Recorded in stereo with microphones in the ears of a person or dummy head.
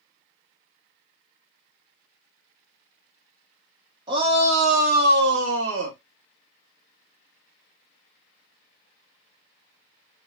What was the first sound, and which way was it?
A shout, 25° right (ahead or behind).